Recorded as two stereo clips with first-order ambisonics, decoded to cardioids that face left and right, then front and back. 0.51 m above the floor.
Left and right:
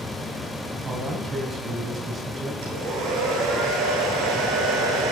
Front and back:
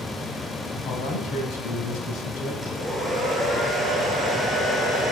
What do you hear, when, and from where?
0.8 s a man speaking: 20° right, 3.5 m
2.6 s a hair dryer: 85° right, 8.5 m